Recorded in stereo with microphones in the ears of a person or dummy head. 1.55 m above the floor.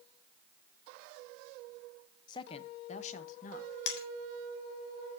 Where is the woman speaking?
30° left (ahead or behind), 0.8 m; by 3.8 s 55° left (ahead or behind), 1.7 m.